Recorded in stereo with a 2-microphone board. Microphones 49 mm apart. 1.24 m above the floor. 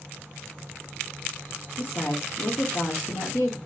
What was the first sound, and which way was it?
A woman speaking, 65° left (ahead or behind).